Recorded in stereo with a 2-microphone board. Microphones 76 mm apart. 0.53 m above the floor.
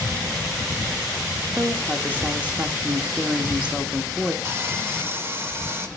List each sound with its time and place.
1.6 s a woman speaking: 20° right (ahead or behind), 0.9 m
4.5 s sawing: 35° right (ahead or behind), 1.0 m